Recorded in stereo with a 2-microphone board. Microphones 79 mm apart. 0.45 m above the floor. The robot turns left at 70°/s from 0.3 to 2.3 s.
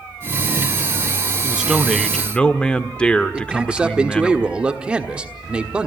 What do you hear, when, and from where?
1.4 s a man speaking: 145° right, 0.9 m; by 4.3 s 150° left, 0.9 m
3.3 s a man speaking: 15° right (ahead or behind), 1.2 m